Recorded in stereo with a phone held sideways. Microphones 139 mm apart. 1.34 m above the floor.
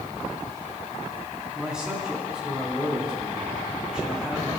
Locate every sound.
1.5 s a man speaking: 5° right (ahead or behind), 3.5 m